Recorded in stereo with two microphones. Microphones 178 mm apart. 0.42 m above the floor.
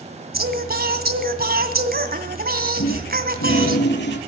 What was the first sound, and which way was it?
Singing, 60° right (ahead or behind).